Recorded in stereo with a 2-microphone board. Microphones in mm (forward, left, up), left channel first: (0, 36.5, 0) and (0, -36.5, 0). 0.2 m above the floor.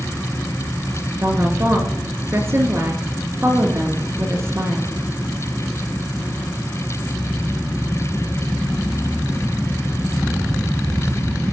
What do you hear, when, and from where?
1.2 s a woman speaking: 40° right (ahead or behind), 3.5 m